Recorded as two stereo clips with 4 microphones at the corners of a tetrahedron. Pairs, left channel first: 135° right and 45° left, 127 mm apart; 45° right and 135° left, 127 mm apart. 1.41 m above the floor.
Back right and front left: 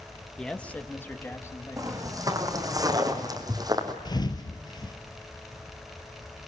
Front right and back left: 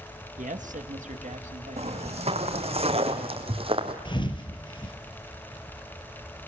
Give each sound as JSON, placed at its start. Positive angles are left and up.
{"t": 0.4, "sound": "a man speaking", "azimuth_deg": 140, "distance_m": 1.5}
{"t": 1.8, "sound": "footsteps", "azimuth_deg": 105, "distance_m": 3.5}
{"t": 4.0, "sound": "a thud", "azimuth_deg": -85, "distance_m": 2.5}